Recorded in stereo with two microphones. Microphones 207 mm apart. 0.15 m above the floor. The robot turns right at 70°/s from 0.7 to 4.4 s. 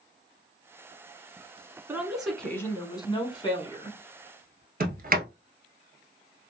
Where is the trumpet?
No trumpet in this recording.